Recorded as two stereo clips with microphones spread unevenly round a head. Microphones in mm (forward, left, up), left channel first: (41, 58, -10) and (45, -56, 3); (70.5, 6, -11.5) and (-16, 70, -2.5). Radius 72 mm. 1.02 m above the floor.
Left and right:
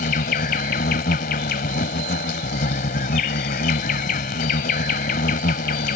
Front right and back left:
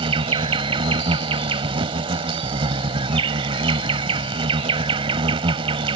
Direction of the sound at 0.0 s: 110° left.